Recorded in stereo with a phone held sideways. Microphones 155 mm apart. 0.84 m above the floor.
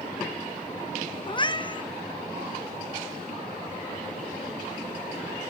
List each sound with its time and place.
1.3 s a cat meowing: 30° left (ahead or behind), 0.6 m